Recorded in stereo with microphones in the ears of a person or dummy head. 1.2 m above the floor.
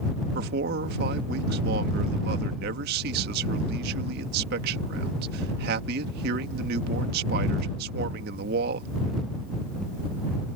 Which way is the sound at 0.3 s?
60° right (ahead or behind).